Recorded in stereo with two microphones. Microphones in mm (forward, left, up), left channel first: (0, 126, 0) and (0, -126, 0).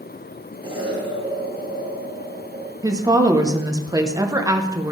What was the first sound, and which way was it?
An explosion, 20° right (ahead or behind).